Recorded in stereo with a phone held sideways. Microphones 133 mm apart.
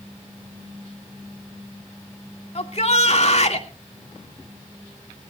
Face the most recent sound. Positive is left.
turn(degrees=55)  # may be behind; listen again after turning